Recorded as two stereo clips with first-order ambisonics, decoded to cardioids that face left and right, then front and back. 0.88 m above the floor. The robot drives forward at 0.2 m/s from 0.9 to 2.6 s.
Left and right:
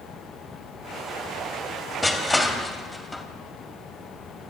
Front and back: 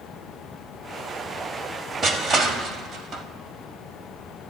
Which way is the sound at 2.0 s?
165° left.